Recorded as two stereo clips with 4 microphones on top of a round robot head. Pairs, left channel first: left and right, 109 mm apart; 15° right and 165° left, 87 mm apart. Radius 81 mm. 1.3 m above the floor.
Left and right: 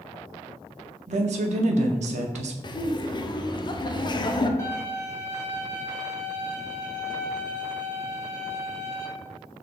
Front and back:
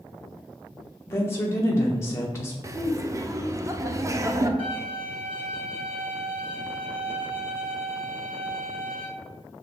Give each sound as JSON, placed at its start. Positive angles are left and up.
{"t": 1.1, "sound": "a woman speaking", "azimuth_deg": -75, "distance_m": 0.6}
{"t": 2.6, "sound": "laughter", "azimuth_deg": 125, "distance_m": 0.6}
{"t": 4.6, "sound": "a violin", "azimuth_deg": 150, "distance_m": 1.8}